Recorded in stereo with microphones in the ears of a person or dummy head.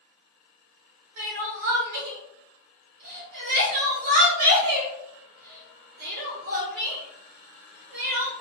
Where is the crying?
50° right (ahead or behind), 0.9 m.